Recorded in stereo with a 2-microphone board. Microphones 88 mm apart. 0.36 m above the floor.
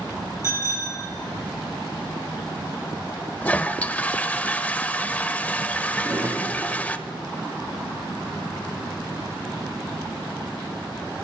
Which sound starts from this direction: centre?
A toilet flushing, at 3.4 s.